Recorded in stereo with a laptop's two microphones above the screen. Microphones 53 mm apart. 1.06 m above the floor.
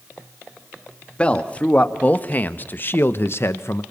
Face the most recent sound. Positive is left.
turn(degrees=55)  # may be behind; listen again after turning